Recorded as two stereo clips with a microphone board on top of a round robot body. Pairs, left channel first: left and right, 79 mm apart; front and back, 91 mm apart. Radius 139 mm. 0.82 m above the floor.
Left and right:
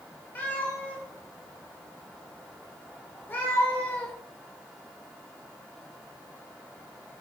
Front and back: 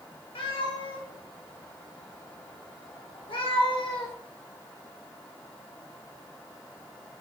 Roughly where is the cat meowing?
Ahead left.